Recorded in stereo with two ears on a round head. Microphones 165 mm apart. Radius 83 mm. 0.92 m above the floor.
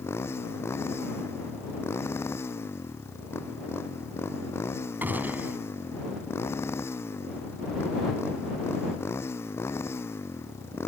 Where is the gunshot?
10° right (ahead or behind).